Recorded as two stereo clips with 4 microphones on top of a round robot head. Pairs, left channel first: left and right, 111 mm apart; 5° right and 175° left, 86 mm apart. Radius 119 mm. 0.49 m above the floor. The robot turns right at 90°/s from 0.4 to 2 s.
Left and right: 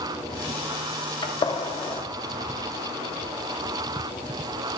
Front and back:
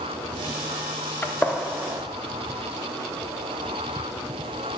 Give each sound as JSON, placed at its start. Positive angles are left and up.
{"t": 1.2, "sound": "a gunshot", "azimuth_deg": 55, "distance_m": 0.9}